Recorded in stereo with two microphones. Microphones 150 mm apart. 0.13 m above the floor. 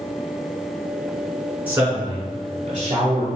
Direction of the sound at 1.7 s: 10° right (ahead or behind).